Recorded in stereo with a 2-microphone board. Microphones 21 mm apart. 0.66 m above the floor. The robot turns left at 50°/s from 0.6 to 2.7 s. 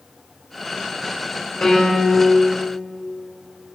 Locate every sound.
1.6 s a piano: 95° left, 3 m; by 2.2 s 60° left, 3 m